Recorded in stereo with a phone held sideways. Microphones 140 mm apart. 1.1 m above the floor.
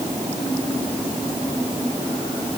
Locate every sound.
Only background noise.